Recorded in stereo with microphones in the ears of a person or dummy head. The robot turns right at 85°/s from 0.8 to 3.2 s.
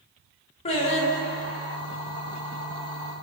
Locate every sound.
0.7 s singing: 65° left, 0.7 m; by 1.8 s 145° left, 0.7 m